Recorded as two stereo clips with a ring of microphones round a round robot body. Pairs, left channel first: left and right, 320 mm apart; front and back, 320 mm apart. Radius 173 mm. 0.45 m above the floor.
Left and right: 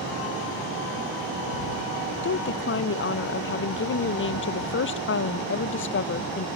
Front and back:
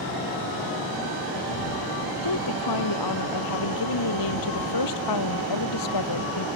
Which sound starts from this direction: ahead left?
A woman speaking, at 2.2 s.